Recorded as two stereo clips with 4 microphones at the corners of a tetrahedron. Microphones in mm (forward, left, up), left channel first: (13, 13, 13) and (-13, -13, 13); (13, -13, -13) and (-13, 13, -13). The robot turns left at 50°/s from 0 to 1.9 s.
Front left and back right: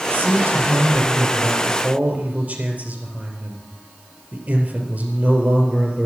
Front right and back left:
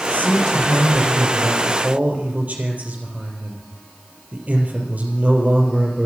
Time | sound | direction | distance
0.1 | a man speaking | 90° right | 4 m